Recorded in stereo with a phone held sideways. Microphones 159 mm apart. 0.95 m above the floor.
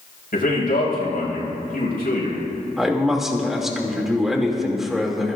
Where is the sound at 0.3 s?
65° left (ahead or behind), 5.5 m.